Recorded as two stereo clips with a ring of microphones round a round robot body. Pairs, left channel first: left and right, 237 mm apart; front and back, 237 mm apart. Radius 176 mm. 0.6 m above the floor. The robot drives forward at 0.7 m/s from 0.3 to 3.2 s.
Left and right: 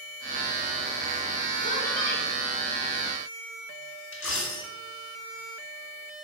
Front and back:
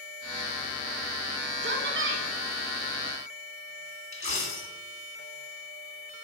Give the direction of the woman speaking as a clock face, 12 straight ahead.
7 o'clock.